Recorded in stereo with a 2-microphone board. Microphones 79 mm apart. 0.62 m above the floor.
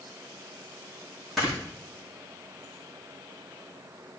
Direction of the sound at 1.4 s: Centre (ahead or behind).